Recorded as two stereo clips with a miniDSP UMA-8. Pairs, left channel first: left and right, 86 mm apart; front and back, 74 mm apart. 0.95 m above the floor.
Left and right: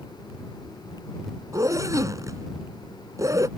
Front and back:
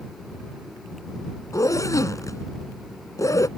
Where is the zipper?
40° right.